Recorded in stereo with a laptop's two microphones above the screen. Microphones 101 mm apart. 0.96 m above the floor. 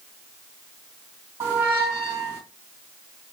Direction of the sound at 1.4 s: 30° right (ahead or behind).